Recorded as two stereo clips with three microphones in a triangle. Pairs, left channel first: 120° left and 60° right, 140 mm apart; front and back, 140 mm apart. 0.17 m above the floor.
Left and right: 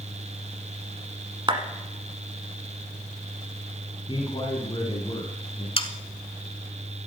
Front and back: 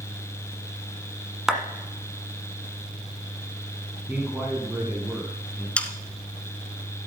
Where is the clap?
95° right, 1.3 m.